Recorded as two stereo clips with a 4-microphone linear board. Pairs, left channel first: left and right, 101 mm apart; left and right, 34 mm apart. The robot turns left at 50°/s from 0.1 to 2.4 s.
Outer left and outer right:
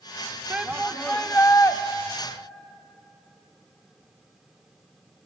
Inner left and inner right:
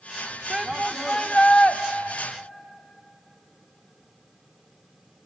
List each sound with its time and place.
0.5 s a shout: 165° right, 0.7 m; by 1.8 s 135° left, 0.7 m